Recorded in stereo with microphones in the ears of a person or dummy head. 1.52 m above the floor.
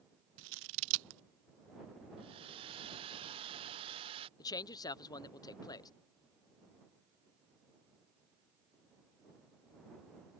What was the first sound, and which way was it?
Scissors, 65° right (ahead or behind).